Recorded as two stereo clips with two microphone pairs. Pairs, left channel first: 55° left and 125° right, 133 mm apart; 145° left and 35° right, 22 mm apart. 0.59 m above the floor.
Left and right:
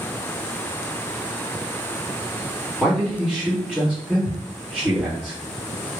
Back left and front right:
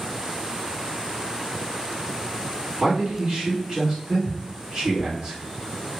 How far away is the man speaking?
About 1.8 m.